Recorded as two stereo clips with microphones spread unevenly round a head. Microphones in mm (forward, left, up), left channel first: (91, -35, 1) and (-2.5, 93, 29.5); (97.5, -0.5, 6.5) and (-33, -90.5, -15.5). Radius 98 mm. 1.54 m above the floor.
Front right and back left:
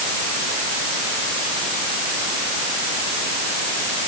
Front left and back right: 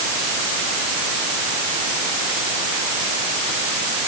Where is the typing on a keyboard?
No typing on a keyboard in this recording.